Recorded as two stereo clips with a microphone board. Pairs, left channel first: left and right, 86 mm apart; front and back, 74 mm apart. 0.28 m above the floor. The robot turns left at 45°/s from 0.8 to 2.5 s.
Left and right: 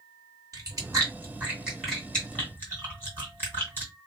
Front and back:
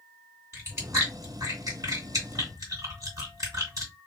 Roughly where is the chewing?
Behind right.